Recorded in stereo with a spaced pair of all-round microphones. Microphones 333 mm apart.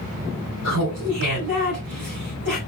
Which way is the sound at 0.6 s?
80° right.